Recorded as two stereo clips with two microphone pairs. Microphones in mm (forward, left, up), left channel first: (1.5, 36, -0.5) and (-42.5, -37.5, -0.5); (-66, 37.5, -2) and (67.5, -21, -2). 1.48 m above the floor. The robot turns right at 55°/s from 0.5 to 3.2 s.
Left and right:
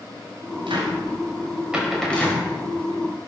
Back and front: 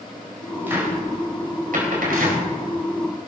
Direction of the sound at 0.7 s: 100° right.